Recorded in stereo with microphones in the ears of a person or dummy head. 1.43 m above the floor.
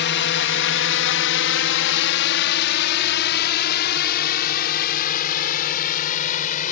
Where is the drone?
55° left (ahead or behind); by 6.7 s 45° left (ahead or behind).